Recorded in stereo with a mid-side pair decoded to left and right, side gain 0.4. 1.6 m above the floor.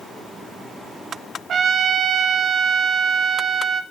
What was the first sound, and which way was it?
A trumpet, 60° right.